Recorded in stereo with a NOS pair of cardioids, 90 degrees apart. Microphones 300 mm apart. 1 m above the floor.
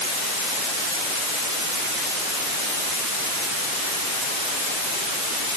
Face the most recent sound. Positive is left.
No sound to turn to.